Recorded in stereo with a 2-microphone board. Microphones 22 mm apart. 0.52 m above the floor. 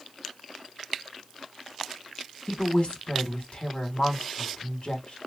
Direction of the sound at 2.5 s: 55° left (ahead or behind).